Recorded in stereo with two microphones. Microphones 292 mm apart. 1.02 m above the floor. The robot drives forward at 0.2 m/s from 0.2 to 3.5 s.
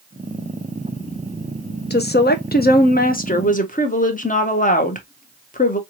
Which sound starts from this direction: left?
A woman speaking, at 1.9 s.